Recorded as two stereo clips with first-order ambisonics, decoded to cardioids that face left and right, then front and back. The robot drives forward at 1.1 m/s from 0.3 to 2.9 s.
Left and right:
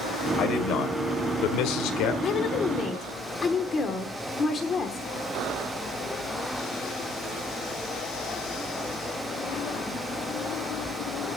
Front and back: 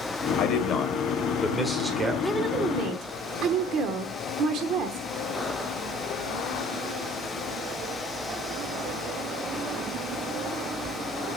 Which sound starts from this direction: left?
A woman speaking, at 2.2 s.